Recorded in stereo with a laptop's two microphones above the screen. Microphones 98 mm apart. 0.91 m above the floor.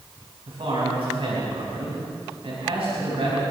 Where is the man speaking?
70° right (ahead or behind), 5 m.